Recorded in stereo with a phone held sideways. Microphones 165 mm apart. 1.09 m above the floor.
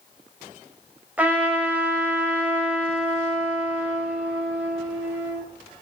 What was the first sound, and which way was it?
A trumpet, 10° right (ahead or behind).